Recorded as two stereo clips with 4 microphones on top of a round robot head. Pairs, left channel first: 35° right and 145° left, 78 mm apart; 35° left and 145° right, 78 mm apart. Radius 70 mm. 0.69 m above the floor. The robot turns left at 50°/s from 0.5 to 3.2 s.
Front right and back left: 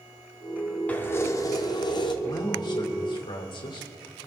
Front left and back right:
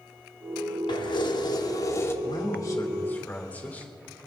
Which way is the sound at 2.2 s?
10° left.